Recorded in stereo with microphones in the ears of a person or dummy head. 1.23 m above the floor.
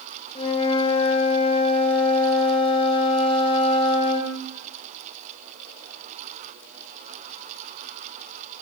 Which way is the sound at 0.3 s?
35° left (ahead or behind).